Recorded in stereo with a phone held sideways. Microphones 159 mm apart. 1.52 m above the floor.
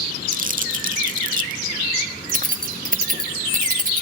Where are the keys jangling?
50° right (ahead or behind), 0.8 m.